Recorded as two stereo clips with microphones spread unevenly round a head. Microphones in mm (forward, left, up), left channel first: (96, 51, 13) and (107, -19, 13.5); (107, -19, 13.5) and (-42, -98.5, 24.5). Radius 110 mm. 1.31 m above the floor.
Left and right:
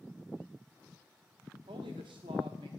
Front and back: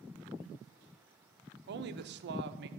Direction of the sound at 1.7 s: 125° right.